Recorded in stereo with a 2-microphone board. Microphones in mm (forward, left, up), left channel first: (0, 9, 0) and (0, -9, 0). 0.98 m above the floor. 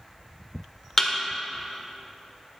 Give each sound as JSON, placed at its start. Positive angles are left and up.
{"t": 1.0, "sound": "a thud", "side_deg": 25, "distance_m": 1.4}